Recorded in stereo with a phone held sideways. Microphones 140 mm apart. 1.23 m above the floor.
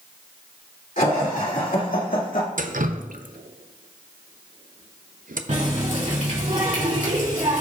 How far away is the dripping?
About 0.5 m.